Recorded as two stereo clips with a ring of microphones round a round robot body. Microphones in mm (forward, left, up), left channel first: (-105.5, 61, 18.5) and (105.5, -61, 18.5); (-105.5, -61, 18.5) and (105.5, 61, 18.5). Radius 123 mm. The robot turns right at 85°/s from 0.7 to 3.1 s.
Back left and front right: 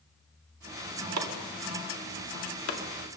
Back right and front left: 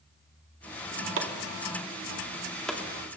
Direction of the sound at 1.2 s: 10° right.